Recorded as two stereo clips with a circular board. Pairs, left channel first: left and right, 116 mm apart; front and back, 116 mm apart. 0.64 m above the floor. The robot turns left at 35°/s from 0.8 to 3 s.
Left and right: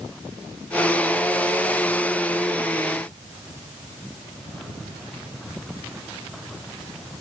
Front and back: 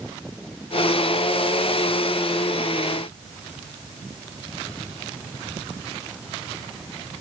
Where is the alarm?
I don't hear an alarm.